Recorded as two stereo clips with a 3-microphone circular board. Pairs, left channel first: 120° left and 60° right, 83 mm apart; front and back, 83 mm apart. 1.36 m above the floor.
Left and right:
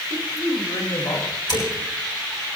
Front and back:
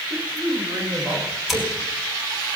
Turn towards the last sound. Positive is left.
turn(degrees=90)